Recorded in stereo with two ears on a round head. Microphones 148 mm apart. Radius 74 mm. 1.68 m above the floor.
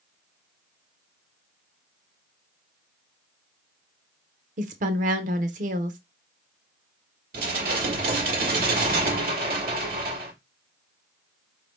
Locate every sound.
4.6 s a woman speaking: 50° right (ahead or behind), 0.9 m
7.3 s dishes clattering: 60° right (ahead or behind), 1.6 m